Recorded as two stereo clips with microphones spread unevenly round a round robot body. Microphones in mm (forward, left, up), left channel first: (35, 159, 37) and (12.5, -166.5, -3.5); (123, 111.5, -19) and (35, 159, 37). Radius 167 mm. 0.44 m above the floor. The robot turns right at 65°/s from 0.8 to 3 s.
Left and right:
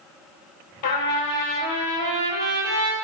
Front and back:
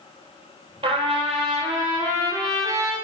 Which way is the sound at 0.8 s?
130° left.